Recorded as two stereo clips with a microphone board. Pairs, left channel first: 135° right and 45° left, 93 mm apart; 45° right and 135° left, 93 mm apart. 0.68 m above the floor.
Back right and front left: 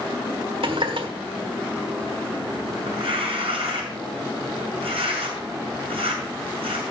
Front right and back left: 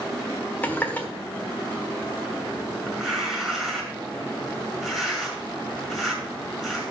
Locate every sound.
0.6 s a running tap: 25° left, 1.4 m
2.9 s tearing paper: 50° left, 5 m